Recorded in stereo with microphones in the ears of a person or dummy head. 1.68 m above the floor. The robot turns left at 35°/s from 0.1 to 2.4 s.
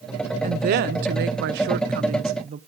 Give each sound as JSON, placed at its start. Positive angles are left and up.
{"t": 0.4, "sound": "a woman speaking", "azimuth_deg": -60, "distance_m": 0.7}